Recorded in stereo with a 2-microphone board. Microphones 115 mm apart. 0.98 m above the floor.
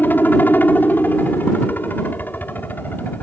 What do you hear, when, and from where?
0.0 s a helicopter: 15° left (ahead or behind)